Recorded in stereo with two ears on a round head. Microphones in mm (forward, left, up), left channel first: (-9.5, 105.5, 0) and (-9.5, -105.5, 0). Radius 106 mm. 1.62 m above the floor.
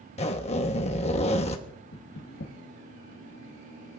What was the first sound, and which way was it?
A zipper, 30° left (ahead or behind).